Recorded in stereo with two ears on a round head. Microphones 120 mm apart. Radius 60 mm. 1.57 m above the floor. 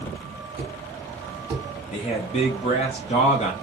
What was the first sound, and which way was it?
A thud, 15° right (ahead or behind).